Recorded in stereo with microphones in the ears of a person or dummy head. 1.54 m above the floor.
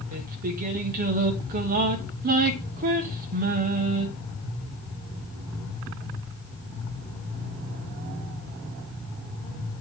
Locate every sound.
0.1 s singing: 45° right (ahead or behind), 1.0 m